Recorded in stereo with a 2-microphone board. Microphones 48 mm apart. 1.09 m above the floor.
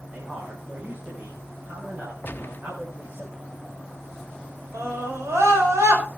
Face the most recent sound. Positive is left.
turn(degrees=-85)